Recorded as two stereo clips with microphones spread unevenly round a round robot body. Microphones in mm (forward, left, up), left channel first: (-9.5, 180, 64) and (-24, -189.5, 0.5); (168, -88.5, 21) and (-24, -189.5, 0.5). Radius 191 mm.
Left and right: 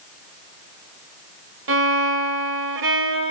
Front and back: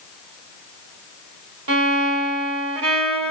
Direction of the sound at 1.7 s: 150° right.